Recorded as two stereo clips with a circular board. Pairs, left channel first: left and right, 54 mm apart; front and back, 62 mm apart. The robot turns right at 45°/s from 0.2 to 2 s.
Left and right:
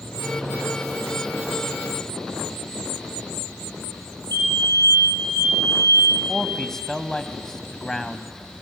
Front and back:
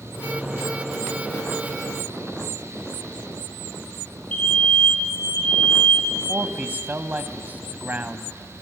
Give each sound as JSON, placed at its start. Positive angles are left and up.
{"t": 4.3, "sound": "a fire alarm", "azimuth_deg": 65, "distance_m": 6.5}
{"t": 6.3, "sound": "a man speaking", "azimuth_deg": 160, "distance_m": 1.1}